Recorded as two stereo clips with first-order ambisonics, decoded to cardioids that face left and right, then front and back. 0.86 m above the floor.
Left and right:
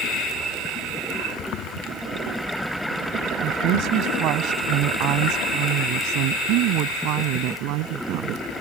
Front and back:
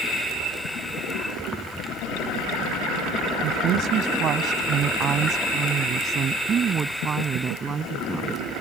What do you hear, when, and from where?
3.4 s a woman speaking: 135° right; by 8.4 s 110° right